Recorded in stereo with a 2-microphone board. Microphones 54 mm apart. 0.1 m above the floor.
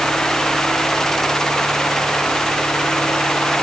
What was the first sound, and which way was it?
Only background noise.